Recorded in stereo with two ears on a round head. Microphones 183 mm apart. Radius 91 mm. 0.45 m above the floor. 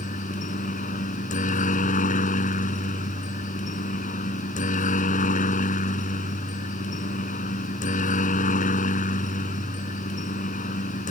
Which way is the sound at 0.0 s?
40° left (ahead or behind).